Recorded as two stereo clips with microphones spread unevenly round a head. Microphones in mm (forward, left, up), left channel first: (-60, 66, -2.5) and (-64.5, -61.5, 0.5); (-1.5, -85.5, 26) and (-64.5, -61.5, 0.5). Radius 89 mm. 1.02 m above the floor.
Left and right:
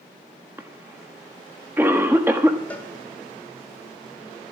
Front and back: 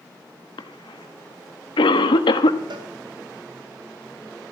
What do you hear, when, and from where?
0.6 s a cough: 10° right, 1.3 m
2.7 s a cowbell: 165° left, 2.5 m